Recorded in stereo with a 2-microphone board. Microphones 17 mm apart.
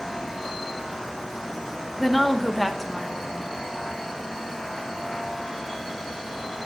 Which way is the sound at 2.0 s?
5° left (ahead or behind).